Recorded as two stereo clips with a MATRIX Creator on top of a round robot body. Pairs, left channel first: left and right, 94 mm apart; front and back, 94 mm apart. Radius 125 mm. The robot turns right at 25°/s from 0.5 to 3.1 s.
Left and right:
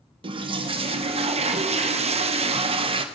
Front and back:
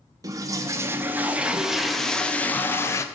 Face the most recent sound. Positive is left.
turn(degrees=-60)